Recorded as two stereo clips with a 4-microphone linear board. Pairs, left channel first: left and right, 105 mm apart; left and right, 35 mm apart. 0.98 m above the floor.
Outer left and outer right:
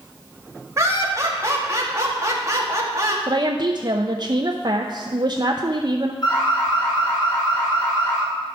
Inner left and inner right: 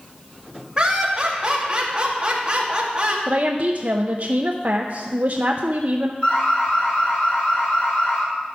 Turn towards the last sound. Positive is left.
turn(degrees=45)  # may be behind; listen again after turning